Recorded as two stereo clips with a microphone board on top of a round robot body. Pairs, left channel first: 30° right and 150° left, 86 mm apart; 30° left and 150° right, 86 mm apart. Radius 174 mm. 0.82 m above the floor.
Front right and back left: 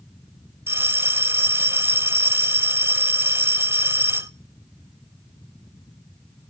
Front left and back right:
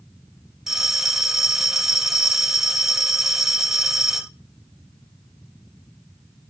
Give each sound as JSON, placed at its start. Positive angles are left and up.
{"t": 0.7, "sound": "a bell", "azimuth_deg": 130, "distance_m": 0.9}